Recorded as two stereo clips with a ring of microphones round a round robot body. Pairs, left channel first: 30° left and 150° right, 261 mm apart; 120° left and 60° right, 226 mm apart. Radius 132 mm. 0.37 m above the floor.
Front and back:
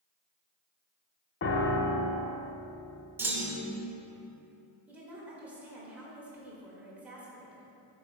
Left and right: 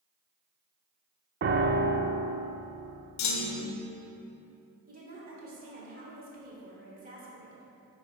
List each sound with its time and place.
1.4 s a piano: 15° right, 0.6 m
3.2 s a clunk: 130° left, 0.7 m
4.9 s a woman speaking: 70° right, 1.4 m